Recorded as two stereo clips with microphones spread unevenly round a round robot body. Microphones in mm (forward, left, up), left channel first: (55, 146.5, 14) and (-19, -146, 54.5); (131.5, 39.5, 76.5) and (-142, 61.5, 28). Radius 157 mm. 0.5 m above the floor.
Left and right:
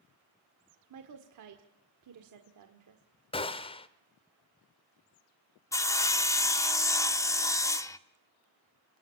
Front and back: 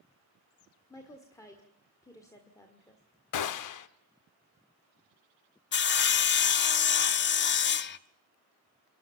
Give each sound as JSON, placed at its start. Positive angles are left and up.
{"t": 0.9, "sound": "a woman speaking", "azimuth_deg": -90, "distance_m": 1.7}
{"t": 3.3, "sound": "a gunshot", "azimuth_deg": 5, "distance_m": 1.0}
{"t": 5.7, "sound": "sawing", "azimuth_deg": 20, "distance_m": 0.9}